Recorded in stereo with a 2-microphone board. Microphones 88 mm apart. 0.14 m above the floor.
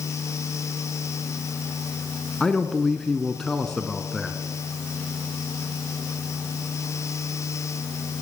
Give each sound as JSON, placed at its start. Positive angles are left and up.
{"t": 2.4, "sound": "a man speaking", "side_deg": 5, "distance_m": 1.4}